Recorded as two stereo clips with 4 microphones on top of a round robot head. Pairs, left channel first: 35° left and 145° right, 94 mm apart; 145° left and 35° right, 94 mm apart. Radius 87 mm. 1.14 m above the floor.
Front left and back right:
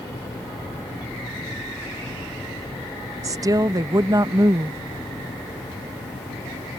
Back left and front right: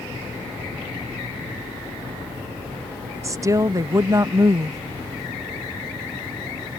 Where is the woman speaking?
90° right.